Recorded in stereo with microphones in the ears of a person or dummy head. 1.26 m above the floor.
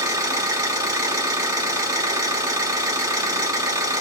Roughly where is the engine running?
Centre.